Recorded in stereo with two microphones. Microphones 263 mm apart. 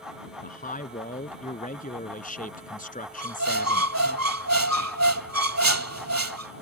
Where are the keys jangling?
No keys jangling in this recording.